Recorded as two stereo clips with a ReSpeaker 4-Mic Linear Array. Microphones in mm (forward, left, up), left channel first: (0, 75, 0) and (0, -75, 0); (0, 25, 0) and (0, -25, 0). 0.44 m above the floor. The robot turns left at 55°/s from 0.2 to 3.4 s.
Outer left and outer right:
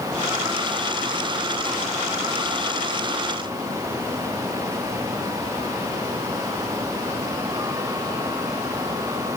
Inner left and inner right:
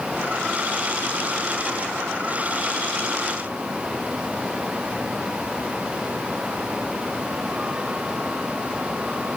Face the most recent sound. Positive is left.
No sound to turn to.